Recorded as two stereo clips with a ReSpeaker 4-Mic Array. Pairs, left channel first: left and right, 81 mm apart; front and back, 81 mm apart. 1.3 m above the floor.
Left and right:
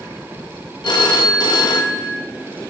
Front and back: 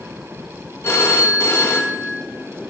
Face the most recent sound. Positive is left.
turn(degrees=60)